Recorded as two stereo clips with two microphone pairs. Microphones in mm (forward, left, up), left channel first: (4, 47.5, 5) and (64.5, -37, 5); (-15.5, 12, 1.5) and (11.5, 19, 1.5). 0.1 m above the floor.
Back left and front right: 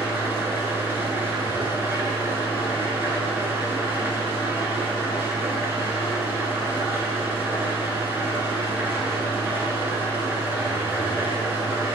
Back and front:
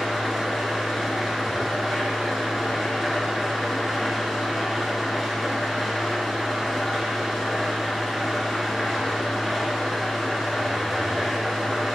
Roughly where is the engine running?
Ahead right.